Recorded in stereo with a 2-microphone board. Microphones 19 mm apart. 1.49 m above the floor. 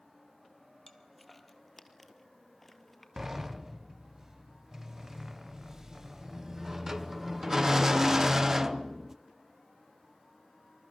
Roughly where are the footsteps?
Centre.